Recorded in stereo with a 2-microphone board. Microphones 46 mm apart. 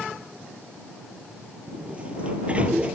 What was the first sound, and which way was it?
A sliding door, 25° right (ahead or behind).